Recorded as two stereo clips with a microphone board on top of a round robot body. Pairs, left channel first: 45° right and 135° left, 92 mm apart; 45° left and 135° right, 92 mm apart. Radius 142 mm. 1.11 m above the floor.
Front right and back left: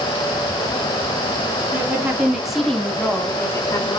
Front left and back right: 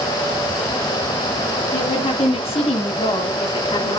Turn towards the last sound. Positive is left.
turn(degrees=5)